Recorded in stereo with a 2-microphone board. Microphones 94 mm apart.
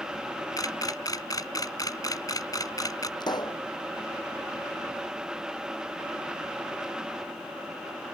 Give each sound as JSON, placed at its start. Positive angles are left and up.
{"t": 0.6, "sound": "a camera shutter", "side_deg": 40}
{"t": 3.2, "sound": "a pop", "side_deg": 50}